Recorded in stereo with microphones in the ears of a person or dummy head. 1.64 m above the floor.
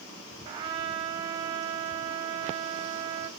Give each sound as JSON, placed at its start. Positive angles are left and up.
{"t": 0.5, "sound": "a trumpet", "side_deg": -25, "distance_m": 1.7}